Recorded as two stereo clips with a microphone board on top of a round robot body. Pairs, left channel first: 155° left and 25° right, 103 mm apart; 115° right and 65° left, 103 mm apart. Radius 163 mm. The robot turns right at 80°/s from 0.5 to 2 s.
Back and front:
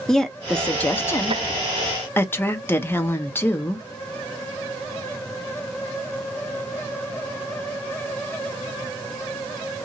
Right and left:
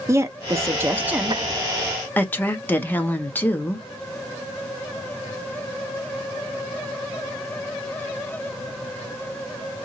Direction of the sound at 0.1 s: 80° left.